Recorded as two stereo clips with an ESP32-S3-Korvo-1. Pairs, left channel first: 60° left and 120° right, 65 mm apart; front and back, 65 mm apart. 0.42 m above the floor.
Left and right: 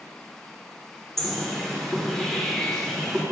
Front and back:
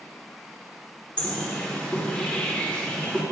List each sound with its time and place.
1.2 s a bird: 10° right, 0.9 m